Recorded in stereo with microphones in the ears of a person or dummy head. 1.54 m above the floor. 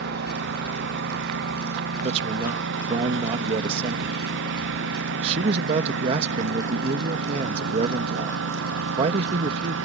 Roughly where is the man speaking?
Right.